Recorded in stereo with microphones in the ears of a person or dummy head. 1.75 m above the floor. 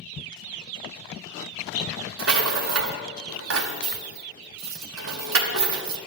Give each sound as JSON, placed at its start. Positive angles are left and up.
{"t": 2.2, "sound": "a rattle", "side_deg": -70, "distance_m": 0.9}